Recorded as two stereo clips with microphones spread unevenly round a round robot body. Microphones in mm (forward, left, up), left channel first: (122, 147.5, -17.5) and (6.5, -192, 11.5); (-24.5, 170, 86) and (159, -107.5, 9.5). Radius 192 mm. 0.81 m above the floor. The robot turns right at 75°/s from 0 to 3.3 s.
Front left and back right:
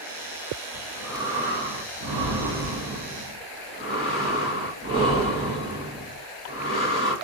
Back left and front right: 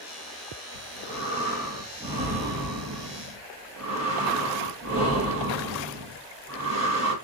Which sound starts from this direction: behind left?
Breathing, at 0.7 s.